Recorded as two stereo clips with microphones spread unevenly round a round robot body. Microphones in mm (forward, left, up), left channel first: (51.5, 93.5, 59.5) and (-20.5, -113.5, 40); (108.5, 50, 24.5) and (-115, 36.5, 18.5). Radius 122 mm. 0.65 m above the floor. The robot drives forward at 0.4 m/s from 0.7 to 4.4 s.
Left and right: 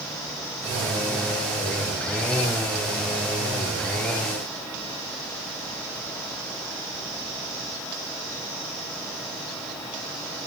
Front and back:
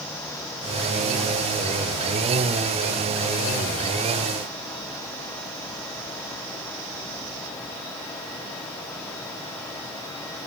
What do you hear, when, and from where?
Only background noise.